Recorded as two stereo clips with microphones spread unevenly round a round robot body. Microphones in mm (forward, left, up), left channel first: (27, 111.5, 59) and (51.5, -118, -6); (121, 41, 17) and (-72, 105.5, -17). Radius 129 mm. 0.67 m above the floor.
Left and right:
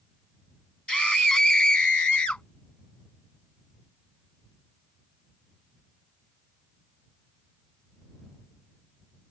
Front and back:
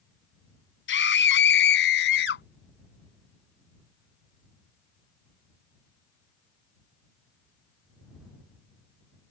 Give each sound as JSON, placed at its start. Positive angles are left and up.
{"t": 0.9, "sound": "a scream", "azimuth_deg": 10}